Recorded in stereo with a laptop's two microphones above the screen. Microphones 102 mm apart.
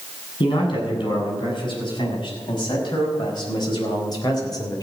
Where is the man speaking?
50° left (ahead or behind), 7.5 m; by 4.8 s 40° left (ahead or behind), 3.5 m.